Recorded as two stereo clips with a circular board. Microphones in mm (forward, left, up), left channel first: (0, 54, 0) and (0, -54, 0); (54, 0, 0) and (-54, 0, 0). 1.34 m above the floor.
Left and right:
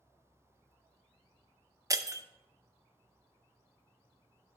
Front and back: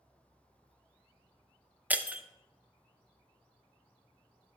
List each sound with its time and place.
1.9 s breaking glass: 115° right, 0.5 m